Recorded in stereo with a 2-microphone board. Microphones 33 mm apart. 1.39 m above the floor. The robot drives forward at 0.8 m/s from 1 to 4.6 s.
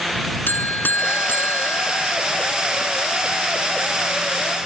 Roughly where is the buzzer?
Left.